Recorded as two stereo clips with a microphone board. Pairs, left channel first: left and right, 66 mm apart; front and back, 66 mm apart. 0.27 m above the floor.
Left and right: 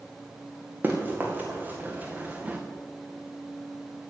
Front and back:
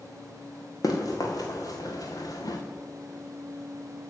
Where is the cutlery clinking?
No cutlery clinking in this recording.